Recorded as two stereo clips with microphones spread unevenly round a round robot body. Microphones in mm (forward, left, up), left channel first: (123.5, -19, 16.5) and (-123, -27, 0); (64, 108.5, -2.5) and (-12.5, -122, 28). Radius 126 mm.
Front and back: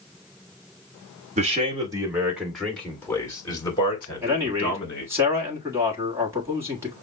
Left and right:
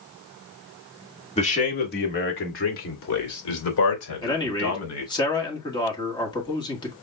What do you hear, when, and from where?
1.4 s a man speaking: 125° left, 1.4 m; by 5.1 s 70° left, 3.5 m
4.2 s a man speaking: 115° left, 1.4 m